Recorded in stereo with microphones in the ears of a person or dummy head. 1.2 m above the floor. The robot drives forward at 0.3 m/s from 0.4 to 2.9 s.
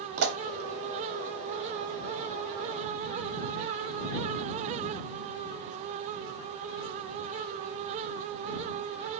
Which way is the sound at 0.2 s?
65° right (ahead or behind).